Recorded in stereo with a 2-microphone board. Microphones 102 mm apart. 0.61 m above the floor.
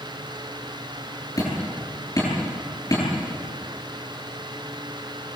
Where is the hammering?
35° left (ahead or behind), 9 m.